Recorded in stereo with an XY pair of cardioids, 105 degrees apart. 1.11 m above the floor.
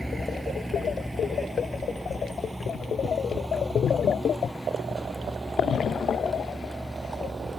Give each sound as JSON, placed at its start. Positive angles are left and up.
{"t": 0.0, "sound": "a vehicle", "azimuth_deg": -5}